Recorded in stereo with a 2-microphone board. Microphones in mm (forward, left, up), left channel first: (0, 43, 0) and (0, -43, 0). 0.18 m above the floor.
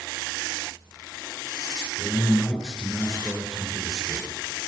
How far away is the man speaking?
About 3 m.